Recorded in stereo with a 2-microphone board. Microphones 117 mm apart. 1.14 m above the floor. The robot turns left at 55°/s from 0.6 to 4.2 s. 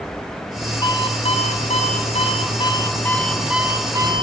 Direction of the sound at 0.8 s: 145° left.